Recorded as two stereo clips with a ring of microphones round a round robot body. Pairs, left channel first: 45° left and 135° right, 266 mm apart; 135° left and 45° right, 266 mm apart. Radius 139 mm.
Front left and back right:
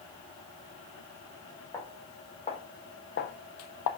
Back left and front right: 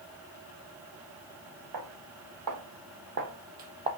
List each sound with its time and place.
1.7 s footsteps: 30° right, 1.7 m; by 3.9 s 25° left, 0.8 m